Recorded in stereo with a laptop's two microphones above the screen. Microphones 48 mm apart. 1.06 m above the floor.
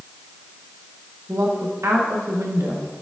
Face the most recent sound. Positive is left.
turn(degrees=-75)  # may be behind; listen again after turning